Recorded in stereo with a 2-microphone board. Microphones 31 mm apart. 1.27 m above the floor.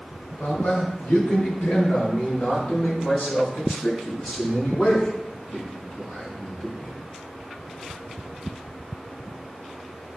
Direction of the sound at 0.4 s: 60° left (ahead or behind).